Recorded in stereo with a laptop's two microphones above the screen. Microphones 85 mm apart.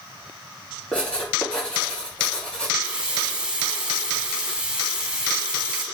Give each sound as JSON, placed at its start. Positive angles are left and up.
{"t": 0.9, "sound": "writing", "side_deg": 10, "distance_m": 3.5}
{"t": 2.8, "sound": "a running tap", "side_deg": -10, "distance_m": 1.7}